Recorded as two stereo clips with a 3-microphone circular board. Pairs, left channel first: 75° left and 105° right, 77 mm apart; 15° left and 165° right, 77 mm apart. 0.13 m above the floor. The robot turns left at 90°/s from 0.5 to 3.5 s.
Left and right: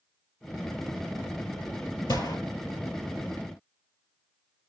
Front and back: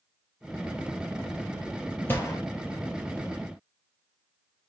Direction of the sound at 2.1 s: 75° left.